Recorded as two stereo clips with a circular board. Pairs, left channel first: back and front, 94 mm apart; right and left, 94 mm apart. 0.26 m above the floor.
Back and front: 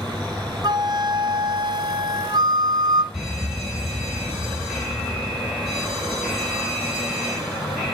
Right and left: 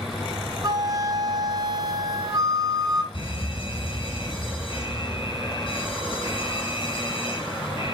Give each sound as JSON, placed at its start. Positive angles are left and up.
{"t": 0.6, "sound": "a flute", "azimuth_deg": 40, "distance_m": 0.6}
{"t": 3.1, "sound": "an alarm", "azimuth_deg": -80, "distance_m": 4.0}